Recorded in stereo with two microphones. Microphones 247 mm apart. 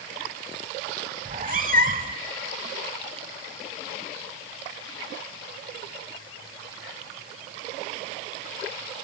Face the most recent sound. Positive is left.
turn(degrees=-35)  # may be behind; listen again after turning